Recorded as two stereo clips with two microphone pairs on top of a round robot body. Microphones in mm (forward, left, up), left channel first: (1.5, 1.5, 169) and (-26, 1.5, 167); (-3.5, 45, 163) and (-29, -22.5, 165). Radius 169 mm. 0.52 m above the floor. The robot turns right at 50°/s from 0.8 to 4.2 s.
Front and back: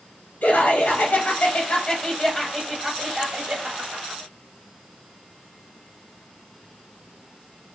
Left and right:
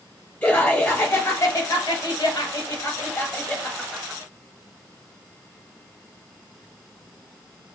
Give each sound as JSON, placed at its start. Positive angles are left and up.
{"t": 0.4, "sound": "laughter", "azimuth_deg": -5, "distance_m": 1.5}